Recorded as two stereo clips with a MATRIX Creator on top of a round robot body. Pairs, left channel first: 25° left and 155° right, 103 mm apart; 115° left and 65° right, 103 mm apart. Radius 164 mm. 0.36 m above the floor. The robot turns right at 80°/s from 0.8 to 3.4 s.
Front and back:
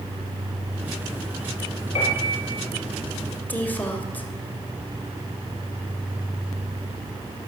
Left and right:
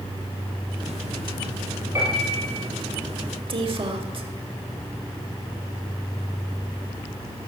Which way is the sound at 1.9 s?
Straight ahead.